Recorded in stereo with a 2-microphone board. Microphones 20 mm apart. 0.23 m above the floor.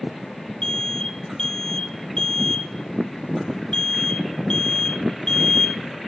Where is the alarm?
35° left (ahead or behind), 1.7 m.